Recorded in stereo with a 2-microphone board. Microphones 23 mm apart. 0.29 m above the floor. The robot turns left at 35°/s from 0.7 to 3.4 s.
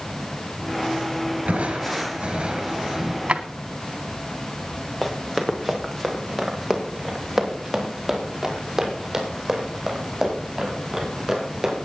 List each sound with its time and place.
1.5 s crushing: 95° right, 4.5 m; by 3.2 s 160° right, 4.5 m
3.3 s a drawer: 60° right (ahead or behind), 1.0 m
5.0 s running footsteps: 15° left (ahead or behind), 3 m; by 11.8 s 15° right (ahead or behind), 9 m